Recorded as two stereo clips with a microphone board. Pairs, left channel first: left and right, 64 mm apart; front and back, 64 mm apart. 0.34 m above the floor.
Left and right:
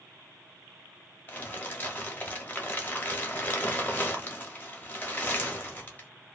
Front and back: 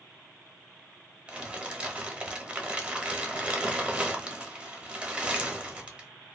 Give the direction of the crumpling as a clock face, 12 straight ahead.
8 o'clock.